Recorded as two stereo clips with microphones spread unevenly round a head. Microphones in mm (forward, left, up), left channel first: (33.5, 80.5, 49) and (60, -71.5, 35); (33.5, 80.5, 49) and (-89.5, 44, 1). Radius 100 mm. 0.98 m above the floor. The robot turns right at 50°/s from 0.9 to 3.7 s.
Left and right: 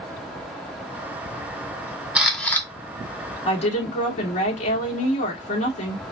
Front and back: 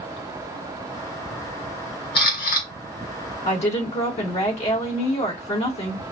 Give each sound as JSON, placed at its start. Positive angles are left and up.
{"t": 2.1, "sound": "a camera shutter", "azimuth_deg": 0, "distance_m": 2.0}
{"t": 3.5, "sound": "a woman speaking", "azimuth_deg": 45, "distance_m": 2.5}